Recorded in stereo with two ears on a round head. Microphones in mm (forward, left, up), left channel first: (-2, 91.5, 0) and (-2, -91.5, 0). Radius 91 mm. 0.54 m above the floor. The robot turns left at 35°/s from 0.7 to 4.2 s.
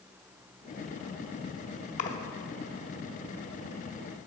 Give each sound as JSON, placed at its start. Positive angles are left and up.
{"t": 2.0, "sound": "a splash", "side_deg": 40, "distance_m": 0.7}